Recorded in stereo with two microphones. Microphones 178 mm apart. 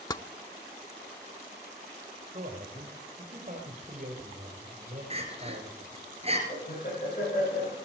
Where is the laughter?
50° left (ahead or behind), 9 m.